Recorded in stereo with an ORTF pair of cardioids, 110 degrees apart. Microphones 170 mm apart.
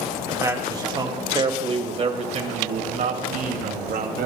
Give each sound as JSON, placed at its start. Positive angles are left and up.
{"t": 0.3, "sound": "a man speaking", "azimuth_deg": -20, "distance_m": 2.5}